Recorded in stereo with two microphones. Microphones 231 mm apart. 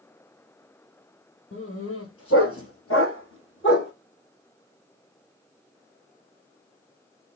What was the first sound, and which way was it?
A dog barking, 70° left (ahead or behind).